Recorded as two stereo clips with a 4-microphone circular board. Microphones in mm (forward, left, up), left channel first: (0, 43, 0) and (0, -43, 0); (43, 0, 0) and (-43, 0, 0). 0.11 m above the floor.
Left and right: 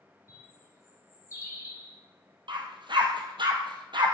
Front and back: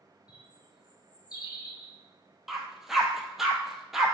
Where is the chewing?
I don't hear chewing.